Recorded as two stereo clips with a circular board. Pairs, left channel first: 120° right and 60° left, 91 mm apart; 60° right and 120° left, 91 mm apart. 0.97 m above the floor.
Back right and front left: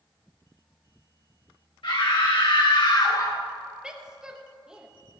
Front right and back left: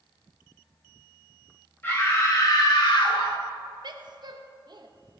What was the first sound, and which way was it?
A scream, 125° right.